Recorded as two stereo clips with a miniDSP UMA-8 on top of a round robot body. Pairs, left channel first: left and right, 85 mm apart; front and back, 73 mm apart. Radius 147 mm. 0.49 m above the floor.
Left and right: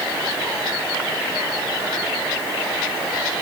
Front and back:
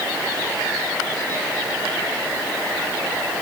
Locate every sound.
Only background noise.